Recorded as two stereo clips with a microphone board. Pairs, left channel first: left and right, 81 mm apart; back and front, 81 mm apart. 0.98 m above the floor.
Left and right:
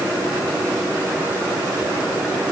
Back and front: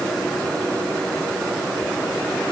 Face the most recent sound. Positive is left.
No sound to turn to.